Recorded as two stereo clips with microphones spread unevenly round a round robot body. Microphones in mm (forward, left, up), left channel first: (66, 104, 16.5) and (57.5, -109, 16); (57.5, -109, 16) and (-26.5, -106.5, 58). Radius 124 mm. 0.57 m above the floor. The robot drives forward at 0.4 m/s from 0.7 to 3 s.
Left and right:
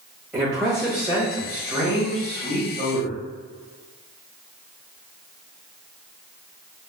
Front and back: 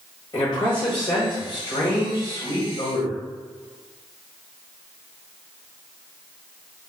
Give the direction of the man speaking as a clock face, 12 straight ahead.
12 o'clock.